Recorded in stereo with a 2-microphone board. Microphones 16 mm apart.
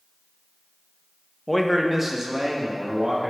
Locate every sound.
1.5 s a man speaking: 15° left (ahead or behind), 0.6 m; by 3.3 s 50° right (ahead or behind), 2.5 m